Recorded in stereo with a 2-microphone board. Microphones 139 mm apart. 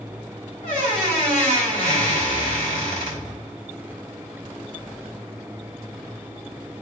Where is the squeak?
70° left (ahead or behind), 2 m.